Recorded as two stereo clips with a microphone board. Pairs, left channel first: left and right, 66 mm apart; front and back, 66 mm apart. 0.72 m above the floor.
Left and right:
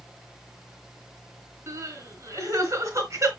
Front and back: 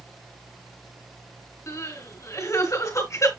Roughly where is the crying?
Ahead right.